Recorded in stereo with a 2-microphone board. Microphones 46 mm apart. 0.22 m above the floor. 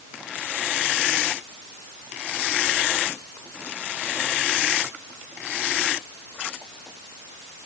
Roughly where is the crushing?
I don't hear crushing.